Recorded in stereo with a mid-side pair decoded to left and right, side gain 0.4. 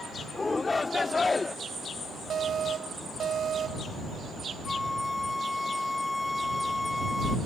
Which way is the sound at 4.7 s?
15° left.